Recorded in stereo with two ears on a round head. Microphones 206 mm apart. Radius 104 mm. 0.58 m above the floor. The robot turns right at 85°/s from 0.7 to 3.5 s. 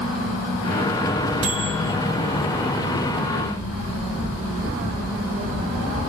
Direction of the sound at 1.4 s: 85° right.